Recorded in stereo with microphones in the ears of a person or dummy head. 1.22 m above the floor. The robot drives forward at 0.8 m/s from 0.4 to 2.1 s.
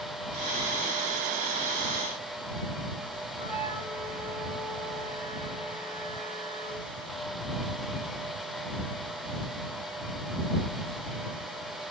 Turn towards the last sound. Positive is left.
turn(degrees=-35)  # may be behind; listen again after turning